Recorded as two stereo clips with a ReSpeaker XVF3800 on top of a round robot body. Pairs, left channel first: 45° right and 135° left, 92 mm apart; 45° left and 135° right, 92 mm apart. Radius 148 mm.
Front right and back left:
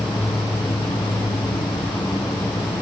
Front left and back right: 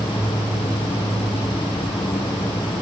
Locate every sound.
0.0 s an insect: 5° right, 3.5 m